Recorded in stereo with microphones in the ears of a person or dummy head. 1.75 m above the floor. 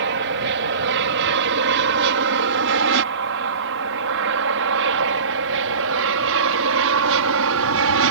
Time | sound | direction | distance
0.0 | an aircraft | 60° right (ahead or behind) | ?